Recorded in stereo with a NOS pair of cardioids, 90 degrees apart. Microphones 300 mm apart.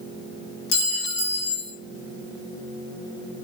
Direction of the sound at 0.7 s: 65° left.